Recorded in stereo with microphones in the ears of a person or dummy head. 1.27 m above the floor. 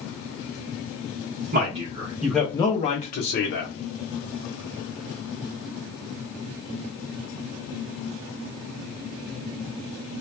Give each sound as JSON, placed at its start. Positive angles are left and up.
{"t": 1.5, "sound": "a man speaking", "side_deg": -40, "distance_m": 0.6}